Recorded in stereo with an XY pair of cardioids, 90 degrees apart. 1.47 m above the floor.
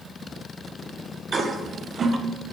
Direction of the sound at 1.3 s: 45° right.